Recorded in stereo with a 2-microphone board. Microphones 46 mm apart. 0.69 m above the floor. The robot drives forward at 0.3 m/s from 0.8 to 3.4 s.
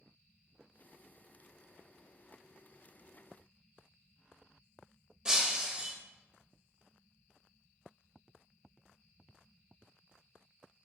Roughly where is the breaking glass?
Centre.